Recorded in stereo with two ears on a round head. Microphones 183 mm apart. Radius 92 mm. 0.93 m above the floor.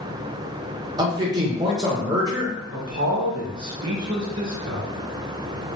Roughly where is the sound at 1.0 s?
Centre.